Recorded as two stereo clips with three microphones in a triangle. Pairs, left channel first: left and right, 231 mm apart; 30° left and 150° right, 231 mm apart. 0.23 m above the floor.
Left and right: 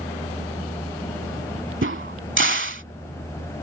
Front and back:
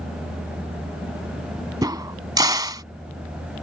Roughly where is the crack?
Right.